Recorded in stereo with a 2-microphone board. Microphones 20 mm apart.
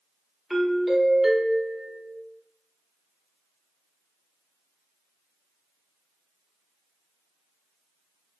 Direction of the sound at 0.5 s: Centre (ahead or behind).